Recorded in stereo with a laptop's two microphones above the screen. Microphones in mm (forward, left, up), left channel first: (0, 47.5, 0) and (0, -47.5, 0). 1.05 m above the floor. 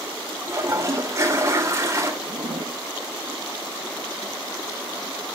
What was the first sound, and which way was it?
A toilet flushing, 30° right (ahead or behind).